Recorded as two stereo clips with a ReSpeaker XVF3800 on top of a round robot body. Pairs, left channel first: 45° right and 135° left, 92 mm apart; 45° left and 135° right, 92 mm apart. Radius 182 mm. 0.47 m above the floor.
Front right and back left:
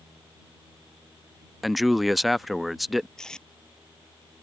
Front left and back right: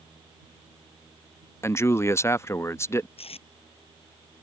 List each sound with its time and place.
1.6 s a man speaking: 50° left
3.2 s tape being pulled: 40° left